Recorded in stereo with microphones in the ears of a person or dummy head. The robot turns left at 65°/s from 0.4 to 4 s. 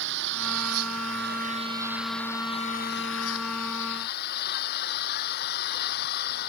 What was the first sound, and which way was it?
An engine running, 70° right.